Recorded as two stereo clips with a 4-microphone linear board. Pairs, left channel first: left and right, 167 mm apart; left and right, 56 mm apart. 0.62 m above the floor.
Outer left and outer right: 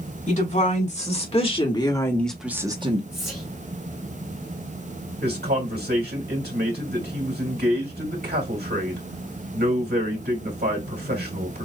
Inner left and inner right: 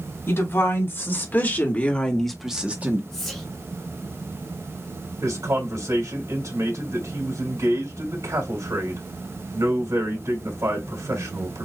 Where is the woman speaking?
45° left (ahead or behind), 3.5 m; by 3.0 s 40° right (ahead or behind), 1.3 m.